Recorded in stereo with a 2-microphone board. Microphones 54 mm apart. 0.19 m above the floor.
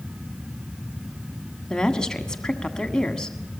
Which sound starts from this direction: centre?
A woman speaking, at 1.7 s.